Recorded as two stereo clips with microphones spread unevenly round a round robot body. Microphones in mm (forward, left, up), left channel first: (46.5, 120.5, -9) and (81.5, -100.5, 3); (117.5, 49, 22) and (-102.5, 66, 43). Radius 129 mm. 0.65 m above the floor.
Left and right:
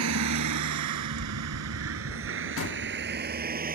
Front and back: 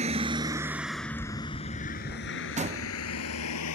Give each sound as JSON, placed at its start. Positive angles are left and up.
{"t": 0.0, "sound": "a vehicle", "azimuth_deg": -120}
{"t": 2.6, "sound": "a door slam", "azimuth_deg": 115}